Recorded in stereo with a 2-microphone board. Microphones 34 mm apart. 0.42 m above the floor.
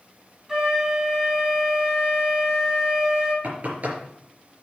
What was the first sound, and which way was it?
A flute, 15° right (ahead or behind).